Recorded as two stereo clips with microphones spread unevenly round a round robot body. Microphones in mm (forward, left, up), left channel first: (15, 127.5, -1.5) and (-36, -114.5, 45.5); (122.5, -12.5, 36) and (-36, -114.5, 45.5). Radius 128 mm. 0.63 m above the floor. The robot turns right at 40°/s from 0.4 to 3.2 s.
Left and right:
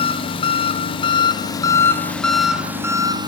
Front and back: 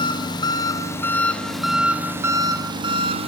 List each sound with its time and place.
0.0 s an engine running: 70° left, 0.8 m; by 3.3 s straight behind, 0.8 m